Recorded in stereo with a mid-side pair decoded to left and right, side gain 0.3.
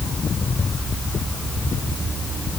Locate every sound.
Only background noise.